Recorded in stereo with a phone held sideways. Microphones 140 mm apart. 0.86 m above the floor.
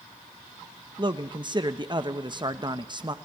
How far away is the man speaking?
About 0.9 m.